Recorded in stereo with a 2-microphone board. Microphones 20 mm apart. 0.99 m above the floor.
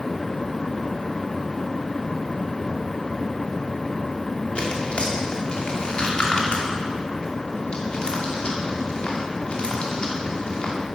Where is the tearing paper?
60° left (ahead or behind), 2.5 m.